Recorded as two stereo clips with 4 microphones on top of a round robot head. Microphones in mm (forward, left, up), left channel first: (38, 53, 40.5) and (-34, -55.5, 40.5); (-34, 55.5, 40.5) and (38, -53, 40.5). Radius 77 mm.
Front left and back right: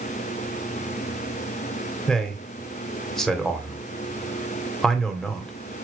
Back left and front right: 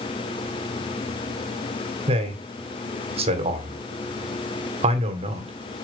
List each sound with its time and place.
2.1 s a man speaking: 30° right, 2.0 m